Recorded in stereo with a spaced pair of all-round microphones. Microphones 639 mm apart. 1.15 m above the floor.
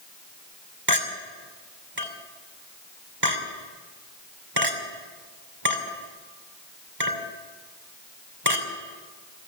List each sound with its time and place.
0.9 s a clink: 35° right (ahead or behind), 2.5 m